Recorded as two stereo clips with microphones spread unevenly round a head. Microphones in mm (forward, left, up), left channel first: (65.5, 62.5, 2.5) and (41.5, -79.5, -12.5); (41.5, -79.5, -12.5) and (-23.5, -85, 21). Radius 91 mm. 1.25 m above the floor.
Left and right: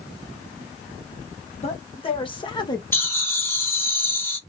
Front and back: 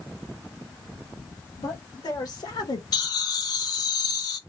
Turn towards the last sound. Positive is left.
turn(degrees=5)